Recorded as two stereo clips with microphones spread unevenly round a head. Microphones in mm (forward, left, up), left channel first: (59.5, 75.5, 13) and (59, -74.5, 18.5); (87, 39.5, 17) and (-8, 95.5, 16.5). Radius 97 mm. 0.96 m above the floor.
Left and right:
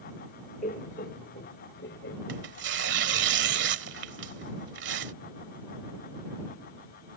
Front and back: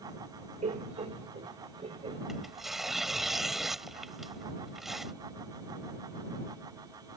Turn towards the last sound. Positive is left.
turn(degrees=-120)